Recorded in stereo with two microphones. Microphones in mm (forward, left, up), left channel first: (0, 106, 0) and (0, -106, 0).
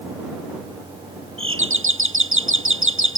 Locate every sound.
1.4 s a doorbell: 65° right (ahead or behind)